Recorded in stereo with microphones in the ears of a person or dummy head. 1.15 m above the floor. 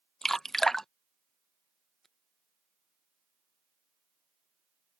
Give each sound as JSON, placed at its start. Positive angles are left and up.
{"t": 0.2, "sound": "dripping", "side_deg": 5}